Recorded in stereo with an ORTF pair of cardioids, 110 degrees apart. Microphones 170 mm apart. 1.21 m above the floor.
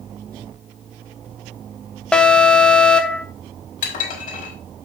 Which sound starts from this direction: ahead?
An alarm, at 2.1 s.